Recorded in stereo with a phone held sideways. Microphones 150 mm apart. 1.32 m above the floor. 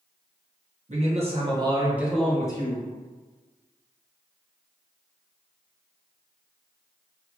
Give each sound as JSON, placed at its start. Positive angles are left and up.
{"t": 0.9, "sound": "a man speaking", "side_deg": -50, "distance_m": 1.0}